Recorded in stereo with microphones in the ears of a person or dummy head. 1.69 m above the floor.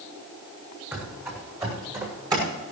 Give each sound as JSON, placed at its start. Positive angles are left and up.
{"t": 0.9, "sound": "running footsteps", "side_deg": -15, "distance_m": 4.0}